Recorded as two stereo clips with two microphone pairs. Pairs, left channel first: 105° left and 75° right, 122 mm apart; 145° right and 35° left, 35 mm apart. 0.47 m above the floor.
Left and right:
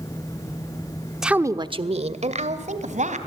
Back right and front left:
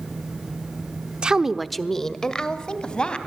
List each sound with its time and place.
1.2 s a woman speaking: 10° left, 0.9 m; by 3.2 s 80° right, 3 m